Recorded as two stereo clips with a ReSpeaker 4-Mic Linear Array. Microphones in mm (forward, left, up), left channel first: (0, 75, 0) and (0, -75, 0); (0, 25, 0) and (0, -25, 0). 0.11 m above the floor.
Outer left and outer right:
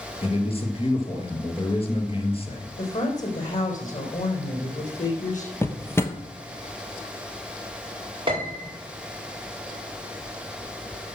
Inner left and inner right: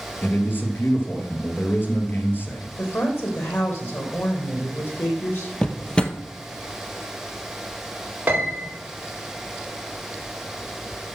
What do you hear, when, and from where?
0.2 s a man speaking: 40° left (ahead or behind), 2.5 m
2.8 s a woman speaking: 60° left (ahead or behind), 4.5 m
5.6 s a drawer: 15° left (ahead or behind), 1.0 m
8.3 s a piano: 35° right (ahead or behind), 5.5 m